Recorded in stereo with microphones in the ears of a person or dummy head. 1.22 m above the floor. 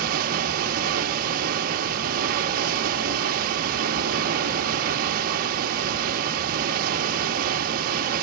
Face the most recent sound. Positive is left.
turn(degrees=-50)  # may be behind; listen again after turning